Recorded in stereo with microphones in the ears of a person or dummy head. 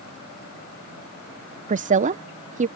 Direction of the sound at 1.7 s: 35° right (ahead or behind).